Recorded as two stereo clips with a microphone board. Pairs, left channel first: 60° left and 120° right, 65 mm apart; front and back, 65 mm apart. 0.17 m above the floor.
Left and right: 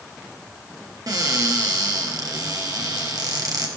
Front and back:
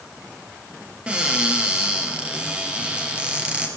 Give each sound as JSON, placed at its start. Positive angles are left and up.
{"t": 1.1, "sound": "a cupboard door", "azimuth_deg": -110, "distance_m": 2.5}